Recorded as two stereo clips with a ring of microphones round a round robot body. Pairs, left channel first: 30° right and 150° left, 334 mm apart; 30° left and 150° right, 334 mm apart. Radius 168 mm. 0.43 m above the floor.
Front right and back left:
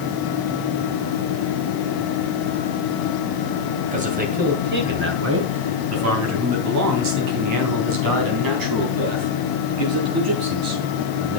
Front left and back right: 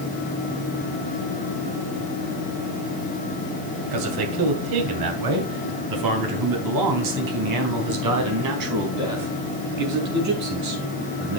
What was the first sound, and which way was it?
A man speaking, 145° right.